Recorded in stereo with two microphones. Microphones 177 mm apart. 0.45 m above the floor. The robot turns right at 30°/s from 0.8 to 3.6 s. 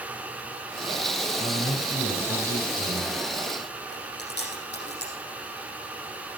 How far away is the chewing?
About 5.5 m.